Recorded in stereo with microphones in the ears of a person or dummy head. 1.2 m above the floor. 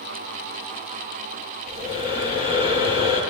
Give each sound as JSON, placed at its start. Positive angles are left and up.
{"t": 1.7, "sound": "breathing", "side_deg": -25, "distance_m": 7.0}